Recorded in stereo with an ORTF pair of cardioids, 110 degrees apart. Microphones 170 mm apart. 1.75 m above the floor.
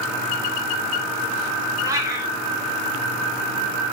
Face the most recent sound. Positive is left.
turn(degrees=-20)